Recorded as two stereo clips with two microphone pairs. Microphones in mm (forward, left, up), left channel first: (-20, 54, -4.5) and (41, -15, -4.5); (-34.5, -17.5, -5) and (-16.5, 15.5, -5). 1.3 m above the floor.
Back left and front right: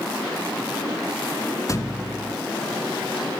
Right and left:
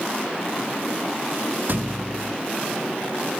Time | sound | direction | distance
1.7 | a thud | 80° left | 1.2 m